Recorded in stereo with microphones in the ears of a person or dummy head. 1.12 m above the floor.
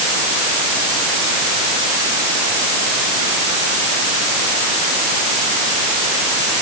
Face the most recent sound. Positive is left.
No sound to turn to.